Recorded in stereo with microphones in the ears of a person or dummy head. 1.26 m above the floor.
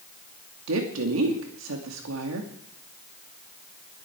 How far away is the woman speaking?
About 2.5 m.